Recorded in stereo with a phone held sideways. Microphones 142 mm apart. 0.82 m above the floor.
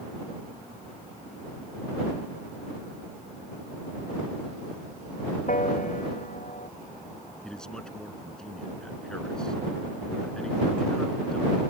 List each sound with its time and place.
5.5 s a piano: 65° left (ahead or behind)
7.4 s a man speaking: 5° left (ahead or behind)